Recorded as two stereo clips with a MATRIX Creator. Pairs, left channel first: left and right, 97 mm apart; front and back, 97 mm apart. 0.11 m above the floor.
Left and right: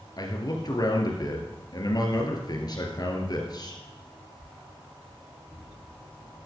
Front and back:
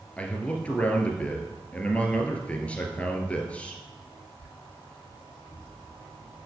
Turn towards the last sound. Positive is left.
turn(degrees=70)